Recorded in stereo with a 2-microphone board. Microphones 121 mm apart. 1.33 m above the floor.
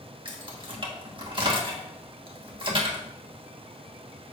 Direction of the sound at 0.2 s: 45° right (ahead or behind).